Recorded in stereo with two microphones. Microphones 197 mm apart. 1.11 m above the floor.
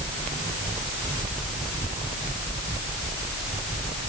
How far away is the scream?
No scream in this recording.